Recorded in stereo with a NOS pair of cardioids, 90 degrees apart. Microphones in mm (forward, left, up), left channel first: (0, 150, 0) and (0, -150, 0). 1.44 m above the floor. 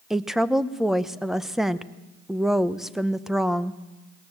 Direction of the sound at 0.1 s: Straight ahead.